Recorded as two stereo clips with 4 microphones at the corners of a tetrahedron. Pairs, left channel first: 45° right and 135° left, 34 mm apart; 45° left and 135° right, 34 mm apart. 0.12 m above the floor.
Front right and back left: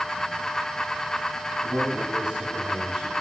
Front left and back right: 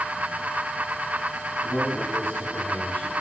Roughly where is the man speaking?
Left.